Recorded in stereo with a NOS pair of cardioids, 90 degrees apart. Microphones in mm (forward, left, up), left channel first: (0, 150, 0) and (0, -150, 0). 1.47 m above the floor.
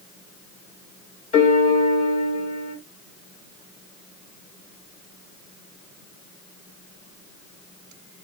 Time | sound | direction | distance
1.3 | a piano | 25° left | 1.1 m